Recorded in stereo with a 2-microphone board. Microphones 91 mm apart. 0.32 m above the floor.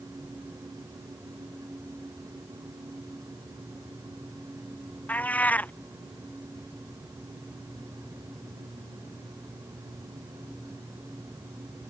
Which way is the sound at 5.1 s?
15° left (ahead or behind).